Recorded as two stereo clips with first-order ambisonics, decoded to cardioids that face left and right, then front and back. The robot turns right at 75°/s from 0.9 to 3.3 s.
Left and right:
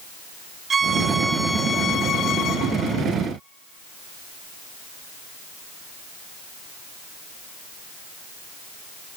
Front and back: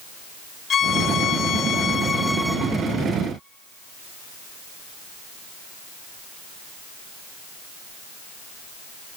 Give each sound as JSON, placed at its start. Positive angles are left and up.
{"t": 0.7, "sound": "a violin", "azimuth_deg": -35, "distance_m": 0.5}